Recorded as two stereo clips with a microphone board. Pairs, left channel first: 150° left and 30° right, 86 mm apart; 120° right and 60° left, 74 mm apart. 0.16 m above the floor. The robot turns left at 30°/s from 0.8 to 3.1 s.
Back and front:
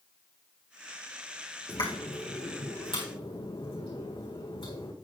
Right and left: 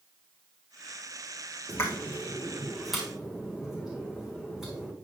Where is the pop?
175° right, 3.5 m; by 4.9 s 145° left, 3.5 m.